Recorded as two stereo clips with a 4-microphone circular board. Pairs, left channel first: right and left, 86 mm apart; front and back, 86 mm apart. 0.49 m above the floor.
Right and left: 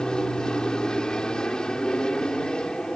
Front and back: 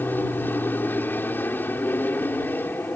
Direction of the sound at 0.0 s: 25° right.